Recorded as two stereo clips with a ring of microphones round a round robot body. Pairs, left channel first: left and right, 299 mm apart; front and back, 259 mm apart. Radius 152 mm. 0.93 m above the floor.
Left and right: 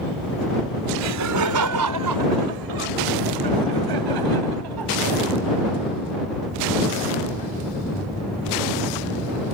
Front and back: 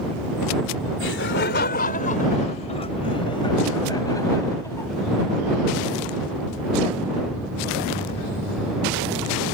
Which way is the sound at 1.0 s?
50° right.